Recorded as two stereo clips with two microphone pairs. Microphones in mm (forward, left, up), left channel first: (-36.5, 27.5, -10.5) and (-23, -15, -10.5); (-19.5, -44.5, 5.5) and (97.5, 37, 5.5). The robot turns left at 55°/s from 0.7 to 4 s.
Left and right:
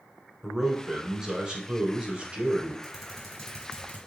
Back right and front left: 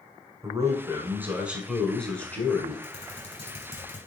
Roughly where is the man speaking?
Ahead.